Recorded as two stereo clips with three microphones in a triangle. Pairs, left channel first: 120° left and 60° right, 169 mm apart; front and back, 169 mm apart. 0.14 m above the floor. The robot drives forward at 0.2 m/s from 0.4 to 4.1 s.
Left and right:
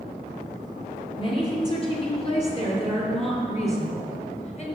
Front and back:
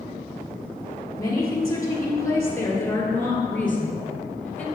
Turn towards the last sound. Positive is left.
turn(degrees=80)